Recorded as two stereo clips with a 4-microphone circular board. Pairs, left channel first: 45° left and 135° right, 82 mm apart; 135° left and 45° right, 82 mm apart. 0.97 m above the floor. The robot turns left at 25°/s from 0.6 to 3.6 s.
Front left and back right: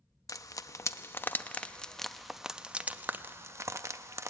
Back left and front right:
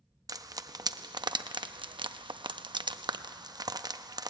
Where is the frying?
5° right, 0.6 m; by 4.3 s 80° right, 0.6 m.